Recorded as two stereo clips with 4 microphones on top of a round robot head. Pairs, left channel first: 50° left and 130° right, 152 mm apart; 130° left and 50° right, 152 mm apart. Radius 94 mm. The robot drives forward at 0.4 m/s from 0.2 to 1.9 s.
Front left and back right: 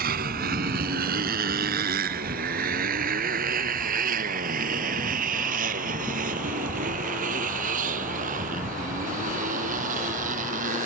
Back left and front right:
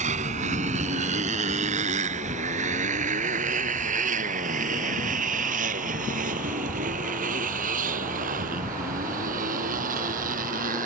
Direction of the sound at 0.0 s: 95° right.